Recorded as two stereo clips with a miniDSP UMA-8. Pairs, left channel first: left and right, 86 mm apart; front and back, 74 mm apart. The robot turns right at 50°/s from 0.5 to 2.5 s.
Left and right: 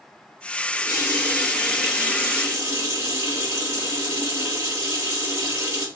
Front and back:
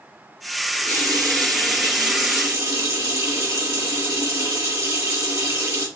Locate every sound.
0.7 s a running tap: 125° left, 1.6 m; by 5.9 s 145° right, 1.6 m